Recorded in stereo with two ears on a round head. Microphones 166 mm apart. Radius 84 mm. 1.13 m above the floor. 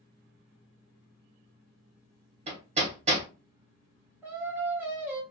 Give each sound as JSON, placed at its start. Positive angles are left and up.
{"t": 2.5, "sound": "hammering", "side_deg": -35, "distance_m": 1.0}
{"t": 4.2, "sound": "singing", "side_deg": -10, "distance_m": 0.9}